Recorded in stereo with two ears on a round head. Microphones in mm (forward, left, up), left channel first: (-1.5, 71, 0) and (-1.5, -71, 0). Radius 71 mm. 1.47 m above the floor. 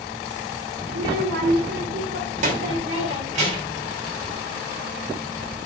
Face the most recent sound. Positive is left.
turn(degrees=-45)  # may be behind; listen again after turning